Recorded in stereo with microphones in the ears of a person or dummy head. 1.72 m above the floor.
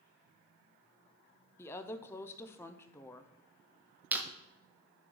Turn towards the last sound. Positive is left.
turn(degrees=-10)  # may be behind; listen again after turning